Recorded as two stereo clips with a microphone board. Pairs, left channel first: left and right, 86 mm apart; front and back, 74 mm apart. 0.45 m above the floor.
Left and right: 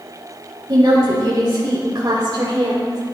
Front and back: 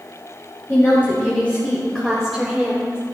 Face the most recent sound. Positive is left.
turn(degrees=-115)